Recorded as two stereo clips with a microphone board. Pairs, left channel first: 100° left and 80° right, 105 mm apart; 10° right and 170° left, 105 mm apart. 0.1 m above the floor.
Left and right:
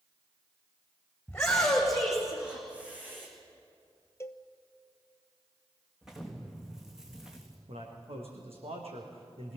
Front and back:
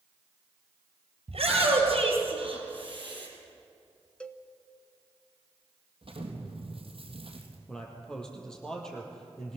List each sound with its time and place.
1.3 s a shout: straight behind, 4 m; by 3.3 s 150° right, 5.5 m
4.2 s a cowbell: 60° left, 0.9 m
6.0 s an explosion: 165° right, 3 m
7.7 s a man speaking: 95° right, 4 m